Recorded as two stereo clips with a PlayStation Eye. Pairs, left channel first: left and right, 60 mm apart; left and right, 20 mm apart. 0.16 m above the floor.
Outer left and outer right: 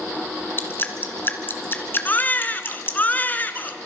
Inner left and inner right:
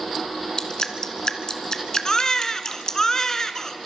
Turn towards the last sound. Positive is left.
turn(degrees=30)  # may be behind; listen again after turning